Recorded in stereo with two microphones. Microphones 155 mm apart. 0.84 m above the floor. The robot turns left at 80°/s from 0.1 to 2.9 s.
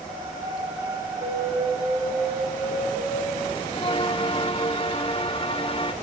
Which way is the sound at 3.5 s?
40° left (ahead or behind).